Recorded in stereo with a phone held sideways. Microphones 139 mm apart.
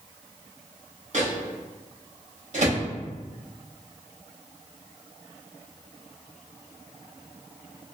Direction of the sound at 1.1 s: 60° right (ahead or behind).